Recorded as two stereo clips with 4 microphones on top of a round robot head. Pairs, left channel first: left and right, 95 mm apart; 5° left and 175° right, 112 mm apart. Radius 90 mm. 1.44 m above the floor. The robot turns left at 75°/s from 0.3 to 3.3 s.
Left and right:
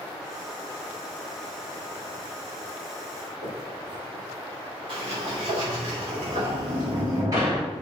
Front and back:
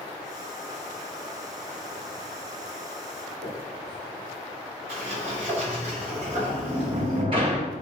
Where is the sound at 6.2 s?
140° right, 1.0 m.